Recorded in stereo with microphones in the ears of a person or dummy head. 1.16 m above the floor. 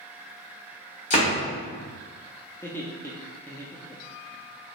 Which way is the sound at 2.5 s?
15° left (ahead or behind).